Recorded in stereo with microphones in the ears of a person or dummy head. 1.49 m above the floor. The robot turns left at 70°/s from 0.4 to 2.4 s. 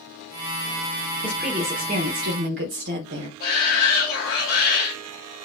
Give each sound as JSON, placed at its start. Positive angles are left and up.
{"t": 1.2, "sound": "a woman speaking", "azimuth_deg": 10, "distance_m": 1.2}
{"t": 3.4, "sound": "a shout", "side_deg": 55, "distance_m": 3.0}